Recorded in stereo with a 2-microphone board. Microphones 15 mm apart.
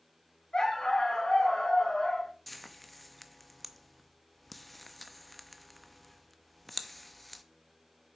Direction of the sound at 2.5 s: 5° left (ahead or behind).